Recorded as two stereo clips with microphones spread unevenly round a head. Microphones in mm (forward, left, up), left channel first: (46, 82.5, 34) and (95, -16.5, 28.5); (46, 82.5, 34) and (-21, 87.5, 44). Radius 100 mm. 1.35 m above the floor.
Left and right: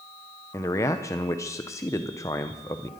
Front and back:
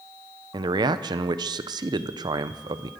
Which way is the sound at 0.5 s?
170° right.